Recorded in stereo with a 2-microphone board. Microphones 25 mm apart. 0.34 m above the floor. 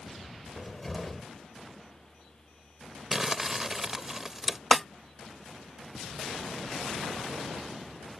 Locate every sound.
0.6 s a cupboard door: 5° left (ahead or behind)
3.1 s crumpling: 15° right (ahead or behind)
4.7 s a snare drum: 5° left (ahead or behind)